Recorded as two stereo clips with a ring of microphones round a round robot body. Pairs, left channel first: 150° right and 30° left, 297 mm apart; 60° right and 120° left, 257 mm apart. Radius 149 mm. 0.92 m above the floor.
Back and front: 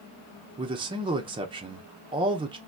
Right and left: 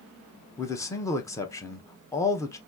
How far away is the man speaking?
About 0.8 m.